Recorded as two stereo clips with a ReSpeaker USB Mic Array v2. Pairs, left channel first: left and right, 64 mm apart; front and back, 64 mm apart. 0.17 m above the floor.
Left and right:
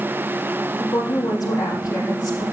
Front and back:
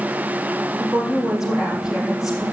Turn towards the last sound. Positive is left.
turn(degrees=100)